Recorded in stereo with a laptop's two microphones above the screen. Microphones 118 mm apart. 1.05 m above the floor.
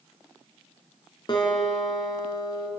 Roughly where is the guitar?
Left.